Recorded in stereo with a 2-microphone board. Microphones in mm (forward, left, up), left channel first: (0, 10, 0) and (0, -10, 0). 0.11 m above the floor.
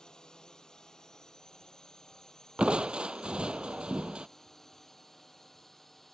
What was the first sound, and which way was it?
A drone, 40° left (ahead or behind).